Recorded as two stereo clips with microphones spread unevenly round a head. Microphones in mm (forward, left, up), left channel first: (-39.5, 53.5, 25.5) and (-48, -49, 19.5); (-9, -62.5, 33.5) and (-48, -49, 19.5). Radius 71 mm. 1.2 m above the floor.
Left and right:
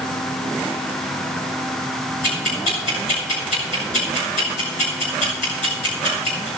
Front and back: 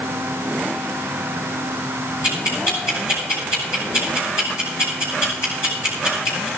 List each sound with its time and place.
2.2 s ticking: 45° left, 7 m